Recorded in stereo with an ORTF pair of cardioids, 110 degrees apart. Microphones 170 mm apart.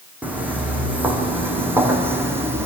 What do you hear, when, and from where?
0.2 s footsteps: 10° right, 5 m; by 2.6 s 15° right, 3.5 m